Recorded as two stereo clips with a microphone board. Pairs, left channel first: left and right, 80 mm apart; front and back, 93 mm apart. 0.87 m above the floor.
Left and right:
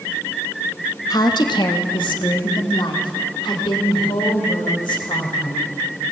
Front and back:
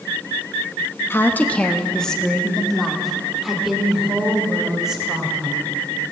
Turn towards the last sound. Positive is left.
turn(degrees=95)